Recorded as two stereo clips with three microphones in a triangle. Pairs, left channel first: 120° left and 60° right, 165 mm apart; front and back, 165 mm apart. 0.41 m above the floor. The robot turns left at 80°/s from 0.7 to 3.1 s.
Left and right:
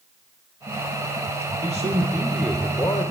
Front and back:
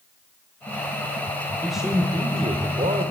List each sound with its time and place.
1.6 s a man speaking: 85° right, 1.1 m; by 3.1 s 160° left, 1.1 m